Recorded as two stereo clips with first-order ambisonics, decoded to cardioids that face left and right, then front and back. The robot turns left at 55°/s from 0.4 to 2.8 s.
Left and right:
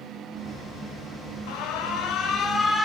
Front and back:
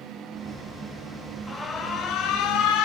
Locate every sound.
1.5 s an alarm: 80° left, 0.7 m; by 2.9 s 10° left, 0.7 m